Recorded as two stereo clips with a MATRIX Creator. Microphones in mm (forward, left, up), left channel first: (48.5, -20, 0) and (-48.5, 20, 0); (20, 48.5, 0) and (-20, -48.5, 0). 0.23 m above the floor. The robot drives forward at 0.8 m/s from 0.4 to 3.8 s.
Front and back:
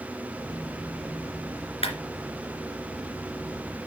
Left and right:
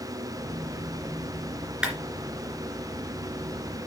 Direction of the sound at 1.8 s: 30° right.